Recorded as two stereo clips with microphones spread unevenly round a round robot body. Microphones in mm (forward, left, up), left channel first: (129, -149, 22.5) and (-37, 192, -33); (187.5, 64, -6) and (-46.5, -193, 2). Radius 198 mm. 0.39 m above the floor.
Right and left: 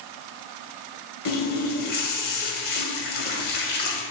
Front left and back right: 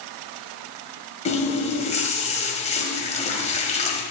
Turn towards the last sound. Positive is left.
turn(degrees=-20)